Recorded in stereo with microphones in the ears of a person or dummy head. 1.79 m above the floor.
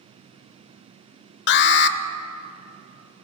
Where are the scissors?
I don't hear scissors.